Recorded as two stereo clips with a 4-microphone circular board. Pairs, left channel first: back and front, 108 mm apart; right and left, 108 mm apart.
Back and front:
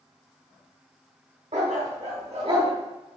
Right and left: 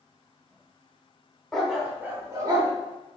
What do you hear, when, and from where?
1.5 s a dog barking: 5° right, 0.9 m; by 2.7 s 40° left, 1.0 m